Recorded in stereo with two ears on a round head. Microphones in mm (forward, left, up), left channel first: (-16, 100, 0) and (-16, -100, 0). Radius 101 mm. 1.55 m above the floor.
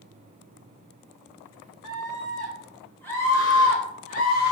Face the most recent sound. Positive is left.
turn(degrees=50)  # may be behind; listen again after turning